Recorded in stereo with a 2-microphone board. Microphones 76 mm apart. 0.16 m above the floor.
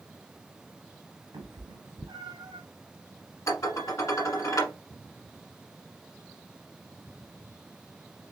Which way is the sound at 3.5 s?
45° left (ahead or behind).